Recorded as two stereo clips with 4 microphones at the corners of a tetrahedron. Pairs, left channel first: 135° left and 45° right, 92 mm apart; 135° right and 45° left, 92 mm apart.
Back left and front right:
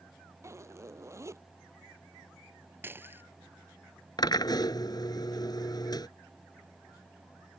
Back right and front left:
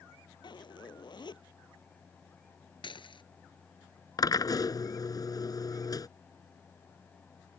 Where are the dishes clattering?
110° right.